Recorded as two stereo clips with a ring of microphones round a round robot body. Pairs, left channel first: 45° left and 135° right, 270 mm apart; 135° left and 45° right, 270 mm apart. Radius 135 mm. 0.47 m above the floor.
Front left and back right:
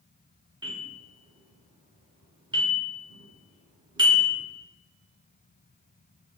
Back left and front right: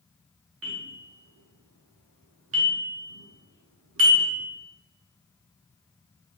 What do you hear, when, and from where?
0.6 s a bell: 65° right, 1.0 m